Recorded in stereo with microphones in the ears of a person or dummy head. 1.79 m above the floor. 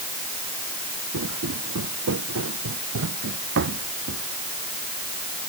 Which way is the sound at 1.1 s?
75° right (ahead or behind).